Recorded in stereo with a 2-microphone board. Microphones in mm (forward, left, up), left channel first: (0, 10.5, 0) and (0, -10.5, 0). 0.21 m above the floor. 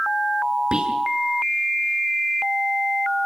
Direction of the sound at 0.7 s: 45° right (ahead or behind).